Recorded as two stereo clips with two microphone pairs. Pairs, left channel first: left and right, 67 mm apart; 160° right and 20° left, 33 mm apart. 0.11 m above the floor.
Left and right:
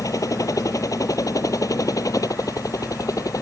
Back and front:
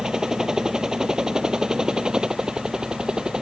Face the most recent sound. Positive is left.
turn(degrees=80)